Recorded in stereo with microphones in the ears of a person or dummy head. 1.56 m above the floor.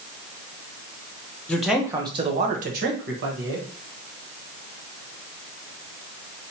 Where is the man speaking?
10° left (ahead or behind), 0.8 m; by 3.7 s 65° right (ahead or behind), 1.4 m.